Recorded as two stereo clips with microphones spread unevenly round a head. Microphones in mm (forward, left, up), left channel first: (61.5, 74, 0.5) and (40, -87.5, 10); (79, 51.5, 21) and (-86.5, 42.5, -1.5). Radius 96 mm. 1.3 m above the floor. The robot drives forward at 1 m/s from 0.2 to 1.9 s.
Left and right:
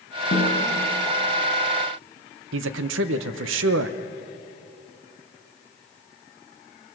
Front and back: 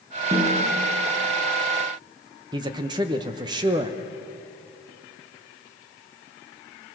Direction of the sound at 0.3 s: 115° left.